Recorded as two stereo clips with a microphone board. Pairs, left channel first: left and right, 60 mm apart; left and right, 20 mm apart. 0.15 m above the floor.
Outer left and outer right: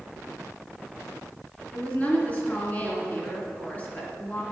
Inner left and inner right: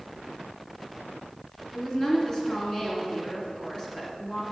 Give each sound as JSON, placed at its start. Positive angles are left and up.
{"t": 1.7, "sound": "a woman speaking", "side_deg": 25, "distance_m": 2.0}